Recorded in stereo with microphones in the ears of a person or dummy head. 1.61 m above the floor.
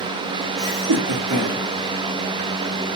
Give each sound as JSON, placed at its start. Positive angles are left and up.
{"t": 0.6, "sound": "laughter", "side_deg": -35, "distance_m": 0.7}